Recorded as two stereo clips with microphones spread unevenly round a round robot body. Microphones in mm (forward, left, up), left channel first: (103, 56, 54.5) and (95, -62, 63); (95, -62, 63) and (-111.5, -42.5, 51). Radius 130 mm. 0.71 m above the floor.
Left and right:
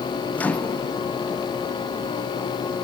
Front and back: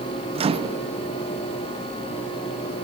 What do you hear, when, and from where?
0.3 s a microwave: 145° left, 0.8 m